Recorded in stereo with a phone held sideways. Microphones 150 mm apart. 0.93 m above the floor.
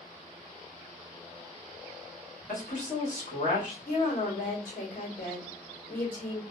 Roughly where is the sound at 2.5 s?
Left.